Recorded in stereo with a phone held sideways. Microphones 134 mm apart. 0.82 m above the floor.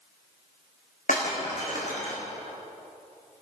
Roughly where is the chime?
I don't hear a chime.